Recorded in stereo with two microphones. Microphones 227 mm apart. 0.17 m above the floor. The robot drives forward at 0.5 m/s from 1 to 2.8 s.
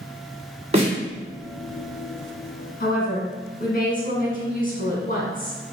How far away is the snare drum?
About 1.6 m.